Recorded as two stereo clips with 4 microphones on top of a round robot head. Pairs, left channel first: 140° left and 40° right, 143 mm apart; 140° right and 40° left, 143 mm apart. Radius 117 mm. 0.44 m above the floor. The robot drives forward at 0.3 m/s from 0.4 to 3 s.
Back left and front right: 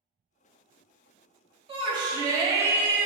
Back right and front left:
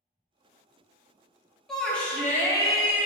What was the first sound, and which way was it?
A shout, 55° right.